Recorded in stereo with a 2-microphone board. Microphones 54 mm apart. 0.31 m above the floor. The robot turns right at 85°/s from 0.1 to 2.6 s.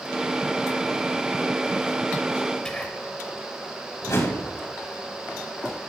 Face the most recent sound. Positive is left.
turn(degrees=55)  # may be behind; listen again after turning